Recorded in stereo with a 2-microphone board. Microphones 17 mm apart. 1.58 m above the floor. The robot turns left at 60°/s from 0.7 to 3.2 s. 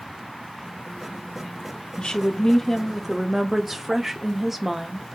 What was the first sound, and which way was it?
A woman speaking, 60° left.